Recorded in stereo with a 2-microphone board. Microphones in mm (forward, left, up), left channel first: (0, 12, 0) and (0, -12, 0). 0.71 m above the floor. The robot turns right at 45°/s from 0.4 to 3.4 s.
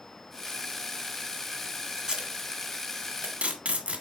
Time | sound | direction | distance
2.0 | tape being pulled | 30° right (ahead or behind) | 1.7 m